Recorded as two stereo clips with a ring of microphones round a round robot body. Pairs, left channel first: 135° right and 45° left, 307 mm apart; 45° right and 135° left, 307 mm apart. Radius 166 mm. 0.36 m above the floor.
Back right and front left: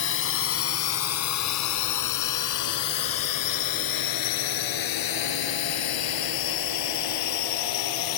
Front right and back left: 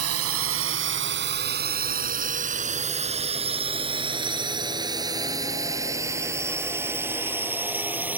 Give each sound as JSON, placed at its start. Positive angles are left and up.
{"t": 0.0, "sound": "a drone", "azimuth_deg": 175}